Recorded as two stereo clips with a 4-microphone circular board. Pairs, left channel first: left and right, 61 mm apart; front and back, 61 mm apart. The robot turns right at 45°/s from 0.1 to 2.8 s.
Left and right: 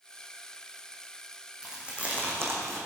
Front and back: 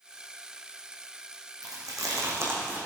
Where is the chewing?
170° right, 3 m; by 2.9 s 120° right, 3 m.